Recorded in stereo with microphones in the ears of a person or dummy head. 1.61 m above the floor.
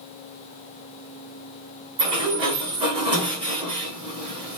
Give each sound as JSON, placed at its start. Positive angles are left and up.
{"t": 2.0, "sound": "a sliding door", "side_deg": -20, "distance_m": 0.9}